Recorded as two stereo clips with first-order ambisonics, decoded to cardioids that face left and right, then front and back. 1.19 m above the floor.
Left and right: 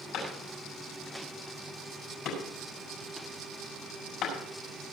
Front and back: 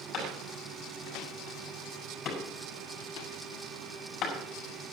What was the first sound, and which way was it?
A clap, 45° left.